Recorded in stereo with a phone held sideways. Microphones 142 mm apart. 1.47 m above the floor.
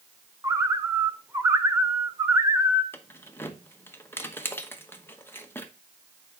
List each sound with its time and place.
0.4 s a bird: 20° right (ahead or behind), 0.7 m
2.9 s keys jangling: 15° left (ahead or behind), 0.9 m